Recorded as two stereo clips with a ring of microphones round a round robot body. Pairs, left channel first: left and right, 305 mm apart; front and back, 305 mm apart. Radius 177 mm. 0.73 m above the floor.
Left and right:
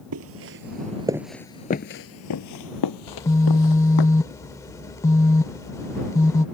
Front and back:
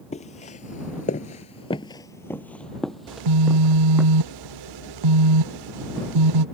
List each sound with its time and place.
0.1 s footsteps: 65° right; by 4.1 s 95° left
3.1 s a phone buzzing: 170° left